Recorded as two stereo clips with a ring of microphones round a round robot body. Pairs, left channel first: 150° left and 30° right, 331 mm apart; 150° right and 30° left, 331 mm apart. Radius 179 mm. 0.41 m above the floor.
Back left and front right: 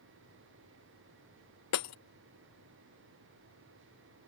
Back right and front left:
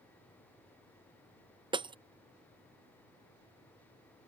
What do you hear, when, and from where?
1.7 s breaking glass: 105° left